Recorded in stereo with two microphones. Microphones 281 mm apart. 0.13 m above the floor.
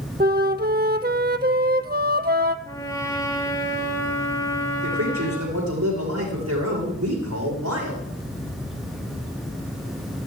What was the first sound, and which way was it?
A flute, 35° right (ahead or behind).